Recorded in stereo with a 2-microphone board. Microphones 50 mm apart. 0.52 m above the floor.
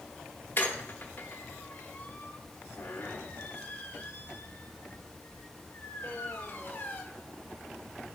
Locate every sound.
0.6 s a squeak: 45° left (ahead or behind), 0.9 m